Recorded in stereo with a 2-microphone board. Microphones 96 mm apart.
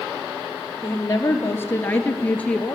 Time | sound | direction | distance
0.8 | a woman speaking | 30° left (ahead or behind) | 2.5 m